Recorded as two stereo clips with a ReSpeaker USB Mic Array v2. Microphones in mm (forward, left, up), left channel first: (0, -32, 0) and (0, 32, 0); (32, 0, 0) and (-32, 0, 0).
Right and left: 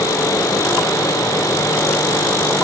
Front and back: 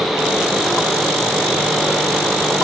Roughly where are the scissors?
No scissors in this recording.